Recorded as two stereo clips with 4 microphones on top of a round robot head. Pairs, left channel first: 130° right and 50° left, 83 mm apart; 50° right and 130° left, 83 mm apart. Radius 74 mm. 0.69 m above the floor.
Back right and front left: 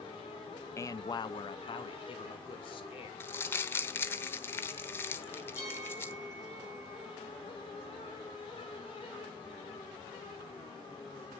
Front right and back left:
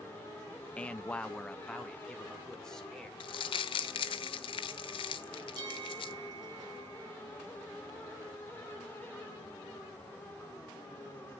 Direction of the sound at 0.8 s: 110° right.